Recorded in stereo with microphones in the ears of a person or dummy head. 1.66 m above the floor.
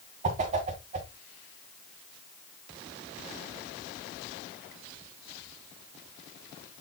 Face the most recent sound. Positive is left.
turn(degrees=-35)  # may be behind; listen again after turning